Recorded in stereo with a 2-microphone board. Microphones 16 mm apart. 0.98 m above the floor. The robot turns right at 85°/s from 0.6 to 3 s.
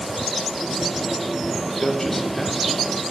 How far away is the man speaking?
About 0.9 m.